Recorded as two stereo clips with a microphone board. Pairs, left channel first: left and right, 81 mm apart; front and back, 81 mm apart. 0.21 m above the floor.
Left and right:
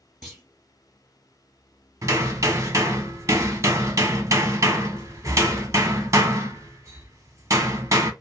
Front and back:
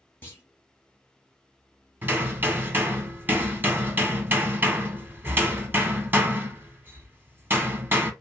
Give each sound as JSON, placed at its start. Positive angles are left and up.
{"t": 0.2, "sound": "a clunk", "azimuth_deg": -5, "distance_m": 1.5}
{"t": 2.0, "sound": "hammering", "azimuth_deg": -125, "distance_m": 0.7}